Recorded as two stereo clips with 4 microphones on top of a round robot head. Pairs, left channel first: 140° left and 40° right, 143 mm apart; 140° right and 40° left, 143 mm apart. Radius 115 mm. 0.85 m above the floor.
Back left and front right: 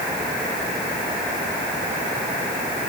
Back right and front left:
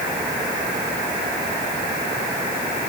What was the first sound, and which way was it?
Only background noise.